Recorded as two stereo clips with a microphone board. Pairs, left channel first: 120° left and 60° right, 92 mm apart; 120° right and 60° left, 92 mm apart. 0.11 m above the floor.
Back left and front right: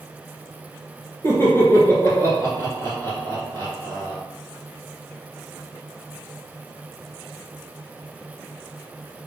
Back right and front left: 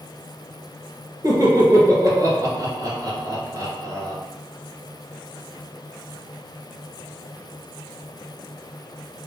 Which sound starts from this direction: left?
Laughter, at 1.2 s.